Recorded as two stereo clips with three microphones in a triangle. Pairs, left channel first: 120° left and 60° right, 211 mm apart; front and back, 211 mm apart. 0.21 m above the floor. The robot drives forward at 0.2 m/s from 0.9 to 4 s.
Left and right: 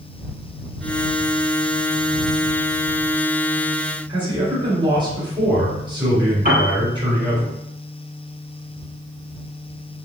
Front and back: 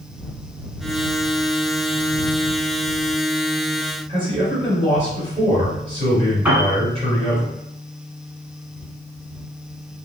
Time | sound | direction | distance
4.1 | a man speaking | 120° right | 1.8 m
6.5 | a piano | 100° right | 1.0 m